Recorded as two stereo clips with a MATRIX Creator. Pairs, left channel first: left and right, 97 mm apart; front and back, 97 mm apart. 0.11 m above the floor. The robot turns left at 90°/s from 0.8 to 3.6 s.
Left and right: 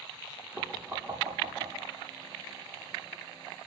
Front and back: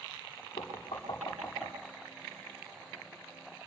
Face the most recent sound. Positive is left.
turn(degrees=95)